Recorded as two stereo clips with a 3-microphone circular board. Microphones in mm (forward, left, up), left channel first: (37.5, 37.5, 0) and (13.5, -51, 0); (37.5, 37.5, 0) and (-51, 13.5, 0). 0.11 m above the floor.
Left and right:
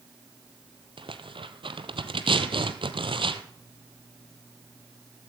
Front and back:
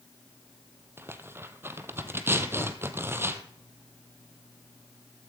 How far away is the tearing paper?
About 0.9 m.